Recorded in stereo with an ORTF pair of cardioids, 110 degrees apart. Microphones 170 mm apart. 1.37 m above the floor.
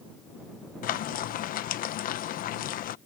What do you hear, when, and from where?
0.8 s frying: 55° left